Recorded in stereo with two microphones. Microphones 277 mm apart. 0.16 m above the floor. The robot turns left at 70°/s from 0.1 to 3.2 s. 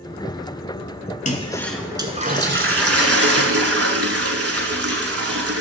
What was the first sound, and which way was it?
A toilet flushing, 35° left.